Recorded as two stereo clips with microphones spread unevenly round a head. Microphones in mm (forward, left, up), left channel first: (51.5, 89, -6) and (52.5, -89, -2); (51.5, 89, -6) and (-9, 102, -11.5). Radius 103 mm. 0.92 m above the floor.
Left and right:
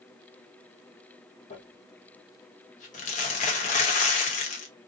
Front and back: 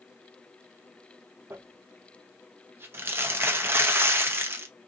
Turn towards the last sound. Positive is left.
turn(degrees=130)